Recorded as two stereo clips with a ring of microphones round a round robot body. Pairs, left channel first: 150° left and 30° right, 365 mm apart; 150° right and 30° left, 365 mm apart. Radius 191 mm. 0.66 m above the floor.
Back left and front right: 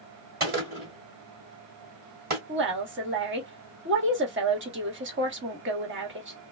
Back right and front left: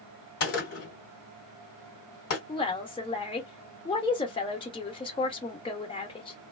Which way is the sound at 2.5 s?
80° right.